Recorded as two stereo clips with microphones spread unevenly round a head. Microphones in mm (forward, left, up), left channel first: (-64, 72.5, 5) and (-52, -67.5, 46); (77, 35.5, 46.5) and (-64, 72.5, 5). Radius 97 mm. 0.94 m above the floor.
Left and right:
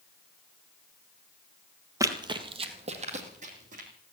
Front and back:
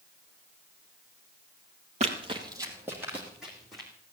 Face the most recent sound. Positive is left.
turn(degrees=-100)